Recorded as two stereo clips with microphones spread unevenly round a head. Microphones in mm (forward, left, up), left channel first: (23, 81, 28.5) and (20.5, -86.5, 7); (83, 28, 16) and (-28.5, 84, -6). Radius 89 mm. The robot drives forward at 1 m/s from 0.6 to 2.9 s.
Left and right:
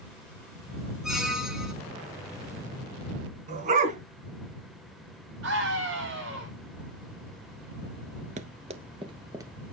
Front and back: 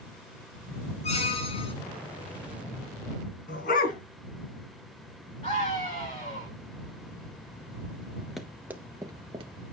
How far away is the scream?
About 8 m.